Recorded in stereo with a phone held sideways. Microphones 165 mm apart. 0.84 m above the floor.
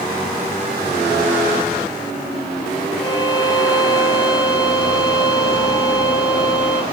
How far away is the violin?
About 1.7 m.